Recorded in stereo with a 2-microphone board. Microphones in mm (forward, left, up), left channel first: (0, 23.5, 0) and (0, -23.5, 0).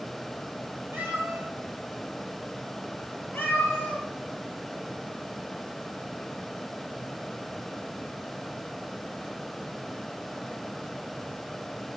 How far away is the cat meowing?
About 1.7 m.